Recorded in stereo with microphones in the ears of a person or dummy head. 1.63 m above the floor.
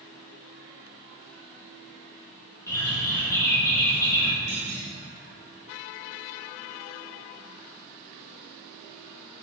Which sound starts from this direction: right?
A clunk, at 4.5 s.